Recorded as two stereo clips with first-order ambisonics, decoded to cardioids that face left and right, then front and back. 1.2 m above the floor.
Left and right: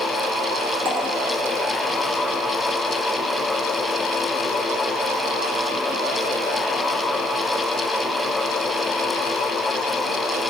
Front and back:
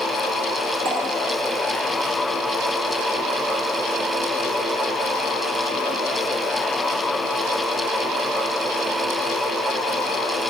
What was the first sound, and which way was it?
Dripping, 105° right.